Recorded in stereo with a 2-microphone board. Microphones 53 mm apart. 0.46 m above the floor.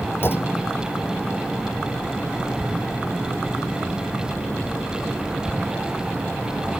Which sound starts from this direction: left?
A clunk, at 0.2 s.